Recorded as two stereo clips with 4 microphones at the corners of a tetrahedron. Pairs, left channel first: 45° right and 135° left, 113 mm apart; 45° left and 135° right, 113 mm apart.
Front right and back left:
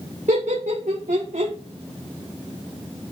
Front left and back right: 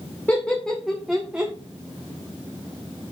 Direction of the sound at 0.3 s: 120° left.